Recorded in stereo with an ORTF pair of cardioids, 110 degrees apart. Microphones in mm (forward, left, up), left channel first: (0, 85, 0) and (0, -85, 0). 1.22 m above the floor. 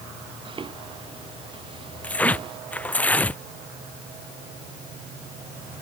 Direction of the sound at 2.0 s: 10° left.